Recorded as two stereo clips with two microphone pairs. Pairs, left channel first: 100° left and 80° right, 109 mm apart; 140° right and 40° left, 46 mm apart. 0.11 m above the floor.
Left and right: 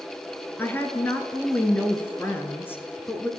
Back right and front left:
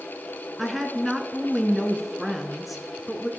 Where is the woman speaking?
130° left, 1.2 m.